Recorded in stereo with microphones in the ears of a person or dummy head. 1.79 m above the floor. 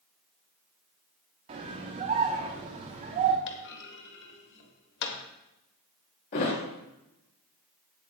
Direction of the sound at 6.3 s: 45° left (ahead or behind).